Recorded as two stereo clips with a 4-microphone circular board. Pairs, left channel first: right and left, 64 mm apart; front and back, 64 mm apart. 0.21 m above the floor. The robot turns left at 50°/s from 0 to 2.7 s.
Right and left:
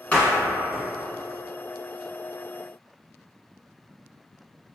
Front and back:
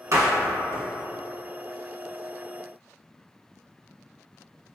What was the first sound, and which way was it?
A door slam, 155° right.